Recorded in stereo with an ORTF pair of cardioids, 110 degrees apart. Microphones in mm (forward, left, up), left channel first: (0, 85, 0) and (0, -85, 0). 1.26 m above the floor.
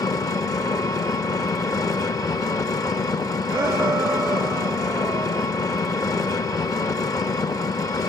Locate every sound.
0.0 s an engine running: 20° left, 1.5 m
3.5 s a shout: 15° right, 0.7 m